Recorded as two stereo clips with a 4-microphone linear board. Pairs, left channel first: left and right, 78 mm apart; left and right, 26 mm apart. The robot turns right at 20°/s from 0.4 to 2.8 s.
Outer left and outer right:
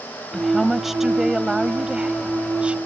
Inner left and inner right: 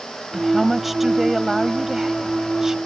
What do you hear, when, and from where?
0.3 s a woman speaking: centre (ahead or behind); by 2.8 s 15° right (ahead or behind)